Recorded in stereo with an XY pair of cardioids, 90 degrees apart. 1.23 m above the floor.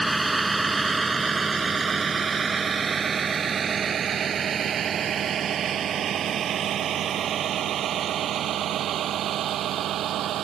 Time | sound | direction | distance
0.0 | a vehicle | 15° right | ?